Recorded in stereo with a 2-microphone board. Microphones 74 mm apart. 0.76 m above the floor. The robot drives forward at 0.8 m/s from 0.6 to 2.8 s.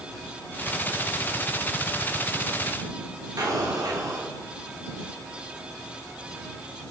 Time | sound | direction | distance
3.4 | an explosion | 55° right (ahead or behind) | 1.7 m